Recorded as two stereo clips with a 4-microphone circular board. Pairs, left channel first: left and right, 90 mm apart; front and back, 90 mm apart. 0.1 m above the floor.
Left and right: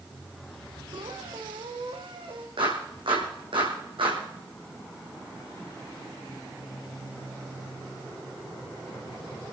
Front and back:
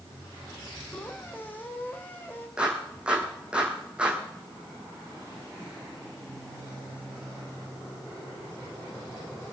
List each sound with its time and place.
0.9 s a squeak: 70° right, 2.5 m
2.6 s a clap: 100° right, 4.5 m